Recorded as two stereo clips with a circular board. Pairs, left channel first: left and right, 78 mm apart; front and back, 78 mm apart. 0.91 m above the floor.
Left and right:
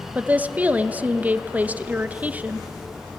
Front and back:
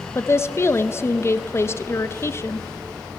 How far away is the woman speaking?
About 0.8 m.